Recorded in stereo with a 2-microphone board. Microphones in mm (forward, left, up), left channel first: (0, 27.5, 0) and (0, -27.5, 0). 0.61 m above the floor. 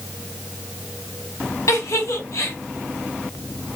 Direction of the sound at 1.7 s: 70° left (ahead or behind).